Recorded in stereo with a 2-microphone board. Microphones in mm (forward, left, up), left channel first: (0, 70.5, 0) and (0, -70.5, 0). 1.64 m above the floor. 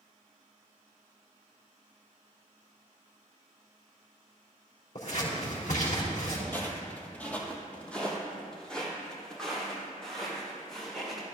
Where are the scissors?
65° left (ahead or behind), 4.5 m.